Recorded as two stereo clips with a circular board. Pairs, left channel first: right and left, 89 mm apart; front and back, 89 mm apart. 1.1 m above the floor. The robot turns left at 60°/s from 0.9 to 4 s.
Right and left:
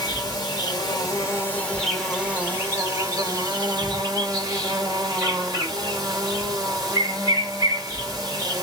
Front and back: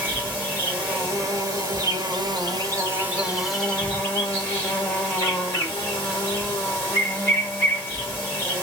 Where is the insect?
110° right, 1.9 m; by 8.6 s 60° left, 1.9 m.